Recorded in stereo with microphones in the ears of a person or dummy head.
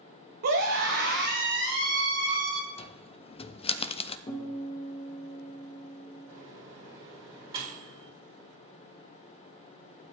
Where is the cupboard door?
40° left (ahead or behind), 0.6 m.